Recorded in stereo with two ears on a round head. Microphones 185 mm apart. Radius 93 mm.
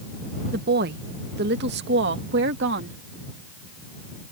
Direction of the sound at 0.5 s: 45° right (ahead or behind).